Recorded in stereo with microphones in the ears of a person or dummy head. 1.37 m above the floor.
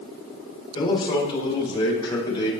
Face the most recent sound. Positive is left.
turn(degrees=25)  # may be behind; listen again after turning